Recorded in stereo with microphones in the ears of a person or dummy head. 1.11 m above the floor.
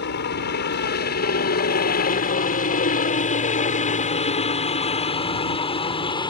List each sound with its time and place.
0.0 s a helicopter: 55° left (ahead or behind); by 6.3 s 30° left (ahead or behind)